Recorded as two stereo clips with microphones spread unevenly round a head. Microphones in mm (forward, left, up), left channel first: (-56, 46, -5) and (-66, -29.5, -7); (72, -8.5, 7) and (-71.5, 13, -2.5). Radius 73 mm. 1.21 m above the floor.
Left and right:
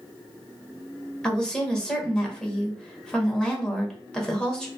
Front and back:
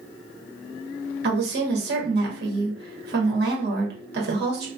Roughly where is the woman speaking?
Behind.